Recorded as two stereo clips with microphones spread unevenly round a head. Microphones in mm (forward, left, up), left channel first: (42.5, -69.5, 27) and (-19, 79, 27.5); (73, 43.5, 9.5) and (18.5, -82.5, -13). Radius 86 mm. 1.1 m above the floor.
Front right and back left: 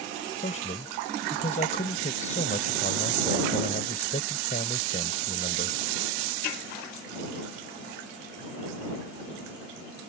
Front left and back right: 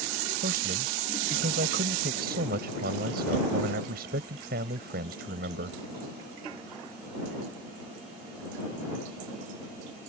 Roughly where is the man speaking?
Behind right.